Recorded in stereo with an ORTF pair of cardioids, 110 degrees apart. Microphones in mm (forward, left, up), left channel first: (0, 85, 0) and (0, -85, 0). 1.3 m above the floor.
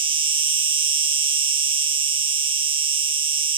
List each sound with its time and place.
0.0 s an insect: 30° right